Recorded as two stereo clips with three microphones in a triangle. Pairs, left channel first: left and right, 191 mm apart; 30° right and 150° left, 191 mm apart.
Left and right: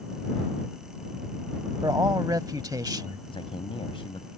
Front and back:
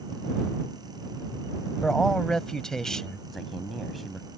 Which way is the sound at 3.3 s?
60° left.